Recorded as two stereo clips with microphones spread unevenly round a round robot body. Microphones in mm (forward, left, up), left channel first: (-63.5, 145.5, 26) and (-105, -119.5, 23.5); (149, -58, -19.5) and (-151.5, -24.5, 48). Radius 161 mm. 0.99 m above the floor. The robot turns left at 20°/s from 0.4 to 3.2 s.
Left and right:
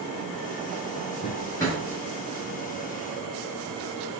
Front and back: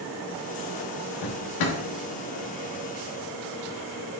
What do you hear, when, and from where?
1.2 s a drawer: 10° left, 0.9 m; by 1.8 s straight ahead, 0.9 m